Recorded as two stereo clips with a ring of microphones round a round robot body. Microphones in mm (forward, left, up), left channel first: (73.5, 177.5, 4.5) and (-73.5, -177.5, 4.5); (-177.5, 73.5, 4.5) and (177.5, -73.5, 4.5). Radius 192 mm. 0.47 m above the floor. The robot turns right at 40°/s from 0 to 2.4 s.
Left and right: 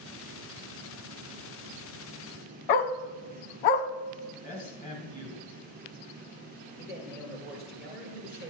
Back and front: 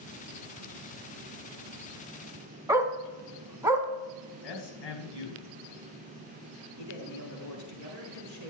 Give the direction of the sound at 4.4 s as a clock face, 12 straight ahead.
7 o'clock.